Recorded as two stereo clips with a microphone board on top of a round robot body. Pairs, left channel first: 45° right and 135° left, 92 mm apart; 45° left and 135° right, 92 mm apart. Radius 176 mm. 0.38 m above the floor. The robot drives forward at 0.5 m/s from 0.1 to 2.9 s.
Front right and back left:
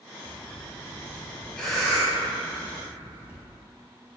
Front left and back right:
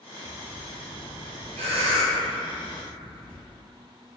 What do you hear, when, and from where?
0.2 s breathing: 70° right, 0.6 m; by 3.4 s 155° right, 1.2 m